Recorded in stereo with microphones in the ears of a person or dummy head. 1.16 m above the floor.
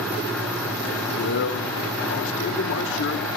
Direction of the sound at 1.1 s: 75° left (ahead or behind).